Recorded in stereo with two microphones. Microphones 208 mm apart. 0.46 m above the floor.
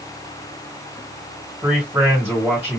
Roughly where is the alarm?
No alarm in this recording.